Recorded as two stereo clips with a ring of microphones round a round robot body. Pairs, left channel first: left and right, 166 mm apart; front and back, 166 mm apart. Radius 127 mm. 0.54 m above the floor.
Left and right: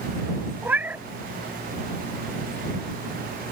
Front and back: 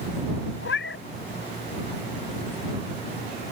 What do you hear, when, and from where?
0.6 s a cat meowing: 10° right